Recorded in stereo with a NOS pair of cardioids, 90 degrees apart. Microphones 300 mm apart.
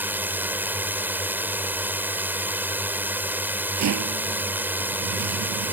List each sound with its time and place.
0.0 s a drone: 5° right
3.8 s a rattle: 65° right